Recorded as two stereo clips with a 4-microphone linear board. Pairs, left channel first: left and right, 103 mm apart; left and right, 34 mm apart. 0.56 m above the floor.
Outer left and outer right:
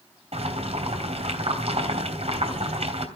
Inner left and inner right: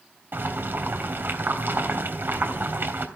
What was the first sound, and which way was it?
Boiling, 75° right (ahead or behind).